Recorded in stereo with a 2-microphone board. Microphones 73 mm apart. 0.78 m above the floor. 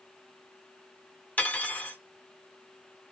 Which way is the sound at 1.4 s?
20° left (ahead or behind).